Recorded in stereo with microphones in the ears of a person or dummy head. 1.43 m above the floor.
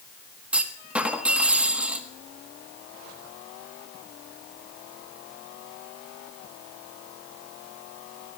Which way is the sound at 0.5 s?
10° right (ahead or behind).